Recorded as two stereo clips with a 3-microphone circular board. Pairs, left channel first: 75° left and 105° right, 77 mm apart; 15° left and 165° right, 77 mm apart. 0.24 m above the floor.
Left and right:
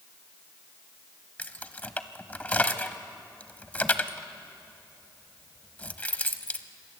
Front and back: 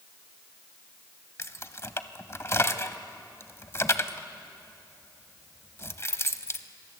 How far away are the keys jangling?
About 0.9 m.